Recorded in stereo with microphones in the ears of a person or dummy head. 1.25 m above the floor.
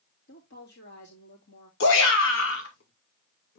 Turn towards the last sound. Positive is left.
turn(degrees=75)  # may be behind; listen again after turning